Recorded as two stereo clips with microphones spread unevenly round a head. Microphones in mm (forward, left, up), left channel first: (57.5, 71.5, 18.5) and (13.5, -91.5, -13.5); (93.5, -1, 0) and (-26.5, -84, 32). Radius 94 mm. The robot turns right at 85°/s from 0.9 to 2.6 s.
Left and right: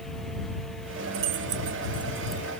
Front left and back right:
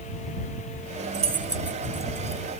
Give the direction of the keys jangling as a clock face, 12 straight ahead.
4 o'clock.